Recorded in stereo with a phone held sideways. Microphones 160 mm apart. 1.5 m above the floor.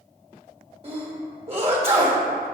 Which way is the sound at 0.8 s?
40° right (ahead or behind).